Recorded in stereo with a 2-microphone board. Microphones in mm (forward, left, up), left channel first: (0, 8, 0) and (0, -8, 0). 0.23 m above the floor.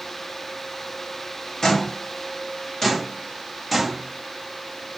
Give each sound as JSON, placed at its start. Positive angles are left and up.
{"t": 1.6, "sound": "footsteps", "side_deg": 25, "distance_m": 2.0}